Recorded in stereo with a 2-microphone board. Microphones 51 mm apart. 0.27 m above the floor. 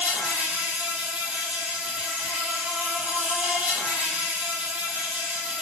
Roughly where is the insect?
Right.